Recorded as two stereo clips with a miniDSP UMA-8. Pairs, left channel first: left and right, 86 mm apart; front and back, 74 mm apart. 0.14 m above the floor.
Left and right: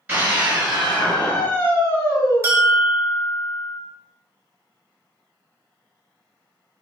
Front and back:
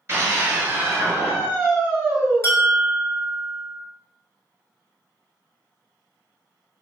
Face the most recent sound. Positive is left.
turn(degrees=-45)